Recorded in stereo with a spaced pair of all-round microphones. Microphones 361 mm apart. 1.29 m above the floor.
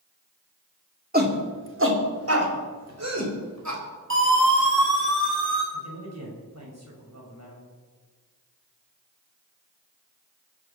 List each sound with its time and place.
1.1 s a shout: 25° right (ahead or behind), 2.5 m; by 3.8 s 50° right (ahead or behind), 5 m
4.1 s a siren: 35° right (ahead or behind), 7.5 m
5.7 s a man speaking: 45° right (ahead or behind), 7 m